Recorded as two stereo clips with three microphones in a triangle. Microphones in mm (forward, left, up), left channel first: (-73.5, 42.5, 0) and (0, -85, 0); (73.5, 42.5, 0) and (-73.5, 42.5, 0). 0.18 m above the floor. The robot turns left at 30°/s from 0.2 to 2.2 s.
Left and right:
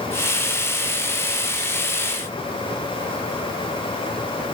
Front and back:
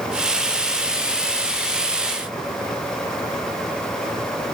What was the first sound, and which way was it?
Only background noise.